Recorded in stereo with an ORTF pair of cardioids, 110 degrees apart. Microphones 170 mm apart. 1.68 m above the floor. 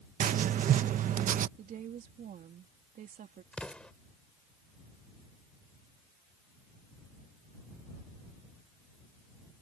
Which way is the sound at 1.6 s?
55° right.